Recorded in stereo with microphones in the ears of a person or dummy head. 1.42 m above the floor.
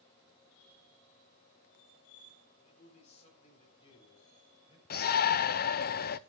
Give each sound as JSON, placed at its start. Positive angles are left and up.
{"t": 2.6, "sound": "a man speaking", "side_deg": 45, "distance_m": 3.5}
{"t": 4.9, "sound": "a shout", "side_deg": 45, "distance_m": 0.7}